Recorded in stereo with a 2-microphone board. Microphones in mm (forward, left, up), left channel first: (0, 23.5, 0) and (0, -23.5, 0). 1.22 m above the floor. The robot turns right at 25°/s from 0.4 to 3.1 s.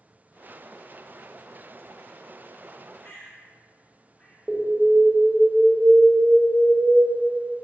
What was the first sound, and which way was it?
A bird, 30° left (ahead or behind).